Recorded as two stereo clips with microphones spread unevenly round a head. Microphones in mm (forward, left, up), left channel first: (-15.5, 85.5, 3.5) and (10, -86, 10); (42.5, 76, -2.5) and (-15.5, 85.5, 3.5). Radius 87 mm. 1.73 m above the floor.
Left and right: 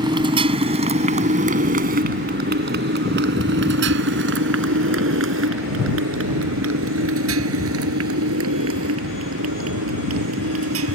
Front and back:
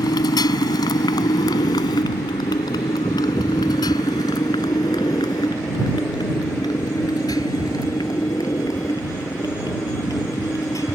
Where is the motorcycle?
15° right; by 11.0 s 85° right.